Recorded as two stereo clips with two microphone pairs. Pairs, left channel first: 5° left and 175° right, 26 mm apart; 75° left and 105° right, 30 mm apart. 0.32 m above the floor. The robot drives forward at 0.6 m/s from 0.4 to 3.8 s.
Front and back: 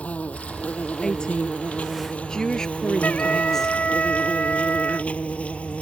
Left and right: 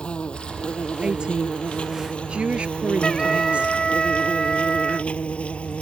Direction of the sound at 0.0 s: 20° left.